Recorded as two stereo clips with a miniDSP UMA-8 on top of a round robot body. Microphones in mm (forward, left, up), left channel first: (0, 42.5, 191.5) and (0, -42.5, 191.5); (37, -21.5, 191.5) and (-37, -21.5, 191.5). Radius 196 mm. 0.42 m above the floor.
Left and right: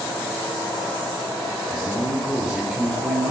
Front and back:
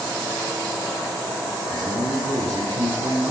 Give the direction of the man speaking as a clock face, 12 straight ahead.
6 o'clock.